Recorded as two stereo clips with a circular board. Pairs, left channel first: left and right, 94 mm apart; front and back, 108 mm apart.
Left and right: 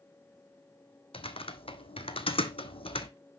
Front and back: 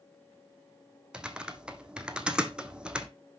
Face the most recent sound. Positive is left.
turn(degrees=100)